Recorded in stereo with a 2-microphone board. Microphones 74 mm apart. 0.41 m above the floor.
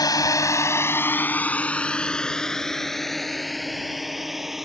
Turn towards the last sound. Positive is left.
turn(degrees=-5)  # may be behind; listen again after turning